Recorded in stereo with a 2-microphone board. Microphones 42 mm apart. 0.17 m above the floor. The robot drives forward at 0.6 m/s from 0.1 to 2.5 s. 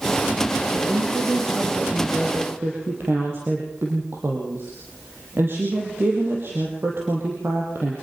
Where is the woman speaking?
60° right (ahead or behind), 6.5 m; by 7.9 s 65° right (ahead or behind), 6 m.